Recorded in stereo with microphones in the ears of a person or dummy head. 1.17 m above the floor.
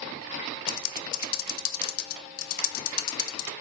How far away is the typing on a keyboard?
About 0.5 m.